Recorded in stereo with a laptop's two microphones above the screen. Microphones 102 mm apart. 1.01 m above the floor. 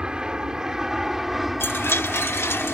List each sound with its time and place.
0.0 s an aircraft: 10° right (ahead or behind); by 2.7 s 5° left (ahead or behind)
1.6 s a chime: 25° left (ahead or behind)